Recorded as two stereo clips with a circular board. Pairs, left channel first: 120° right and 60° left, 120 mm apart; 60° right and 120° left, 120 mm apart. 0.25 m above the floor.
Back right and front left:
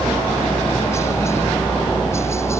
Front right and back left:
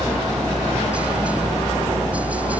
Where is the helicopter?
165° right; by 2.6 s 170° right.